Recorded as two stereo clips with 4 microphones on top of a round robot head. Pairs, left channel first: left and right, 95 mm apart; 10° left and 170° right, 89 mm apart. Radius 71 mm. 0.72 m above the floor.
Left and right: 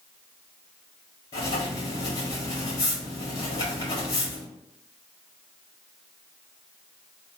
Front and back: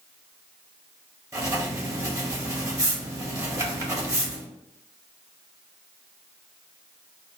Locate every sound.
1.3 s writing: 140° left, 1.6 m